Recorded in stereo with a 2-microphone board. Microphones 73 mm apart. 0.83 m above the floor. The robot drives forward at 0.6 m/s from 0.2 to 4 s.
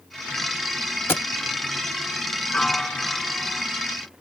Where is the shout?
No shout in this recording.